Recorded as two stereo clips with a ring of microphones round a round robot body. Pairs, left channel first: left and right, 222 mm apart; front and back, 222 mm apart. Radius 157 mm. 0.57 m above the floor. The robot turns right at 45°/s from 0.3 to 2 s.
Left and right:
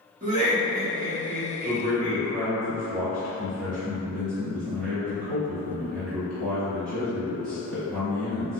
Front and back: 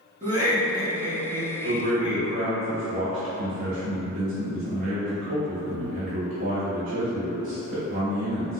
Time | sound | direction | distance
0.2 | laughter | 125° right | 1.1 m
1.6 | a man speaking | 145° right | 1.5 m